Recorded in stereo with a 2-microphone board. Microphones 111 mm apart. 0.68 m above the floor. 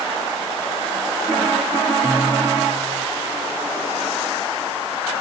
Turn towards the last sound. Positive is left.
turn(degrees=-30)  # may be behind; listen again after turning